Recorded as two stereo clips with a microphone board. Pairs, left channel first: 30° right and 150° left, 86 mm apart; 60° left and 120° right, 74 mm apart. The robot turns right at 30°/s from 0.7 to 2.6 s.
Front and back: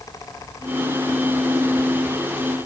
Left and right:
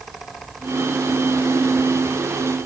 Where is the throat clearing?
I don't hear throat clearing.